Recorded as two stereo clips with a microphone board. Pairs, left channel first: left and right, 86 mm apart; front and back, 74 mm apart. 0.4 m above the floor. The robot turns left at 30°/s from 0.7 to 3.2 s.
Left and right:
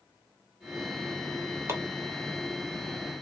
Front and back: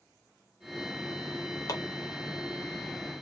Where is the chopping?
35° right, 1.3 m; by 1.8 s 40° right, 1.3 m.